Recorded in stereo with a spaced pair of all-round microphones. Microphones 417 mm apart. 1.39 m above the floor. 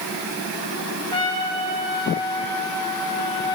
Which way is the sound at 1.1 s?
70° right (ahead or behind).